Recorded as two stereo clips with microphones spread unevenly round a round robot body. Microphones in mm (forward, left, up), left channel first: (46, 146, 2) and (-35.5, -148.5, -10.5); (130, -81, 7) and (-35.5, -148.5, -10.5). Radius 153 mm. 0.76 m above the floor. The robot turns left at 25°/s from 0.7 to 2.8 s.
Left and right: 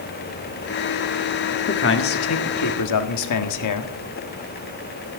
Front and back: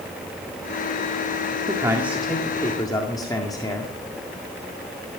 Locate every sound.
1.7 s a man speaking: 130° left, 1.6 m; by 3.9 s 100° left, 1.6 m